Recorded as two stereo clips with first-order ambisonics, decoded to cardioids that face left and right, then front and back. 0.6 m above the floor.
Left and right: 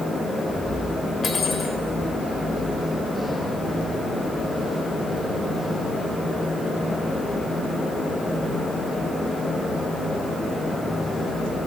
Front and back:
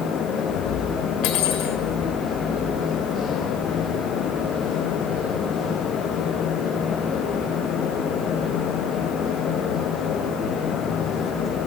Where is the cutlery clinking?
25° left, 1.3 m.